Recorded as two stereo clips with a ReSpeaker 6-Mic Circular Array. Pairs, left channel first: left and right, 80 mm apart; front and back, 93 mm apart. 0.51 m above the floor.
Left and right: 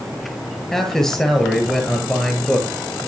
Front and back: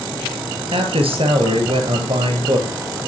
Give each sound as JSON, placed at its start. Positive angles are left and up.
{"t": 0.7, "sound": "a man speaking", "azimuth_deg": 175, "distance_m": 8.0}